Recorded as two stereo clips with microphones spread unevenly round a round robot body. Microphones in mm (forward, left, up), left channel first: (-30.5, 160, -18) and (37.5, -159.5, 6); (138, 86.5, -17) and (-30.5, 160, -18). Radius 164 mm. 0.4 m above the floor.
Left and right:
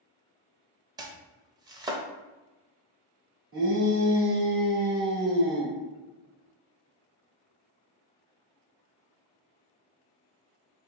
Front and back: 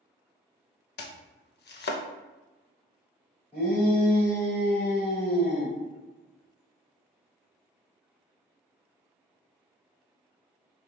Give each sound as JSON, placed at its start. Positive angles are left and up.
{"t": 1.0, "sound": "chopping", "azimuth_deg": 0, "distance_m": 0.6}
{"t": 3.5, "sound": "a shout", "azimuth_deg": -130, "distance_m": 1.7}